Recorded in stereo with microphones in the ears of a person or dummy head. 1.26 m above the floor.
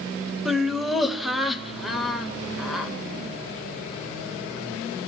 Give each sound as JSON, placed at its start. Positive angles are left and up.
{"t": 0.5, "sound": "laughter", "side_deg": -5, "distance_m": 1.6}